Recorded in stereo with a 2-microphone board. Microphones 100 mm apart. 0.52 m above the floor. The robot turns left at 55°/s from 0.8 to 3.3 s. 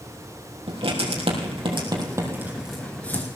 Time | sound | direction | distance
0.7 | writing | 70° right (ahead or behind) | 3.5 m